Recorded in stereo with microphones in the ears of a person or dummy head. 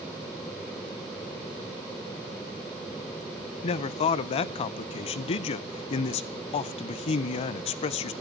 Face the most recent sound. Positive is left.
turn(degrees=35)  # may be behind; listen again after turning